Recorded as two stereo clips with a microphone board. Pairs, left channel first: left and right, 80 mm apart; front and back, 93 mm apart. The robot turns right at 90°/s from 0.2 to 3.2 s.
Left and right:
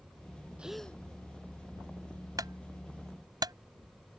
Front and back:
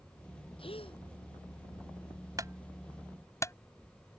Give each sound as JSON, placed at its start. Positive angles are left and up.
{"t": 0.6, "sound": "a gasp", "azimuth_deg": -15}
{"t": 2.4, "sound": "a clunk", "azimuth_deg": -130}